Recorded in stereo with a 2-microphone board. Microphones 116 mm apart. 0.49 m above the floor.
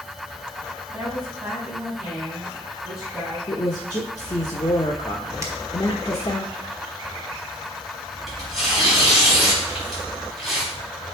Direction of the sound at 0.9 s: 5° right (ahead or behind).